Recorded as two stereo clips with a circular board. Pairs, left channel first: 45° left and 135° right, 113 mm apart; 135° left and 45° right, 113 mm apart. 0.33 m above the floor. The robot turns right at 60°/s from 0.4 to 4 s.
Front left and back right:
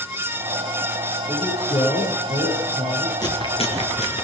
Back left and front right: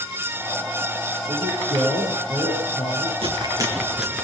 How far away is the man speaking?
About 8 m.